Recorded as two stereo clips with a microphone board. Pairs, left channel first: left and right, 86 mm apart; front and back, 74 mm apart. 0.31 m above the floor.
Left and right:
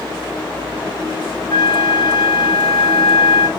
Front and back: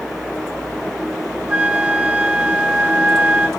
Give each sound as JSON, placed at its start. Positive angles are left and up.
{"t": 1.5, "sound": "a flute", "azimuth_deg": 105, "distance_m": 0.5}